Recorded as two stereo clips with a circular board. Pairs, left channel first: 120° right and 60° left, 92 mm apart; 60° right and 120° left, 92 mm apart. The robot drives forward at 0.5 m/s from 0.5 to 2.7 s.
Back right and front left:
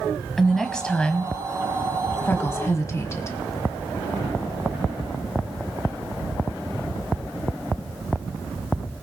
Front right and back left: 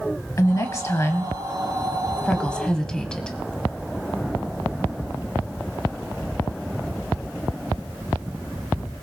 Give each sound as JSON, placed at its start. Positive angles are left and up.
{"t": 0.4, "sound": "a woman speaking", "azimuth_deg": -35, "distance_m": 1.2}